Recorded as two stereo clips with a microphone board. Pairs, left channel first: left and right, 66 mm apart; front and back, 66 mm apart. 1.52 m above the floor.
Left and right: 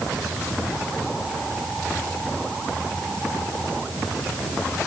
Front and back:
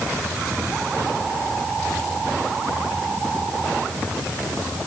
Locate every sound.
Only background noise.